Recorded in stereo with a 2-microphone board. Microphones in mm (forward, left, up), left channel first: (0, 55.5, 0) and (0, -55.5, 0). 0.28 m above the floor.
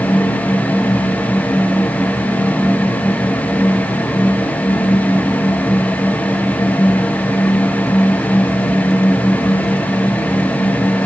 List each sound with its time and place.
Only background noise.